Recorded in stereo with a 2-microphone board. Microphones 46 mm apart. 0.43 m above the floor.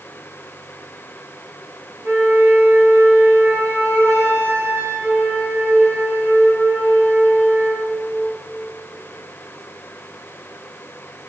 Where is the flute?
80° right, 9.5 m.